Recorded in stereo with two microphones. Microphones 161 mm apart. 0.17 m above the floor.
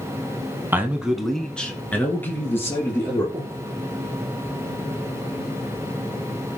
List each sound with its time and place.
0.7 s a man speaking: 15° right (ahead or behind), 1.1 m; by 3.2 s 15° left (ahead or behind), 3.5 m
3.3 s breathing: 30° right (ahead or behind), 3 m